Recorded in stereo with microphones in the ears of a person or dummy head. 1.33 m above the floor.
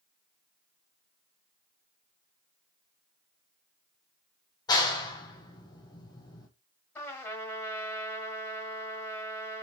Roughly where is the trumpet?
Centre.